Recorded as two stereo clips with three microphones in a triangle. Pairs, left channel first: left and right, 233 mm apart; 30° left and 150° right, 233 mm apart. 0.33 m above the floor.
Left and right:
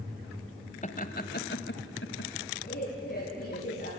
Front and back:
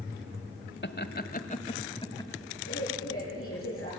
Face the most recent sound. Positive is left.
turn(degrees=45)